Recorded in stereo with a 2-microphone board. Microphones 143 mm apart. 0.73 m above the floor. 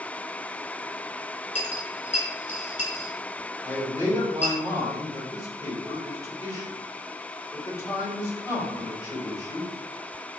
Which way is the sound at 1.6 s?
55° left (ahead or behind).